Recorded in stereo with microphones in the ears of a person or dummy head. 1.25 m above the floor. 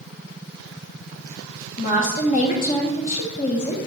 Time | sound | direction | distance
1.8 | a woman speaking | 40° left (ahead or behind) | 1.2 m